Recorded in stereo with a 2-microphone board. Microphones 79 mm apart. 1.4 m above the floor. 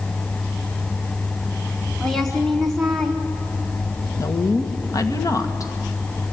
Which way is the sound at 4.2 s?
45° left (ahead or behind).